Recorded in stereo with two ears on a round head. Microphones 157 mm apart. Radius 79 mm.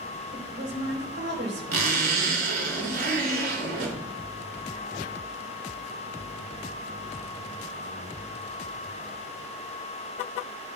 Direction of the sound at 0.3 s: 70° right (ahead or behind).